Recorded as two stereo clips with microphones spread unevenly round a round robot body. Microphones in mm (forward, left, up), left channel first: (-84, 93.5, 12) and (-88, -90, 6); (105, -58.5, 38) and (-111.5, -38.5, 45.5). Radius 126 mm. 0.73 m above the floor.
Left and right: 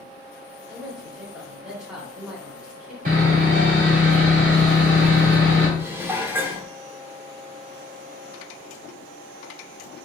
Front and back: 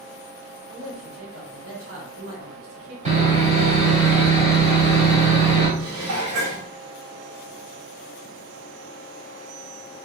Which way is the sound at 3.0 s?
130° right.